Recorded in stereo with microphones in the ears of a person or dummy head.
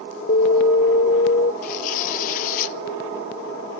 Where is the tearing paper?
45° left (ahead or behind), 0.7 m.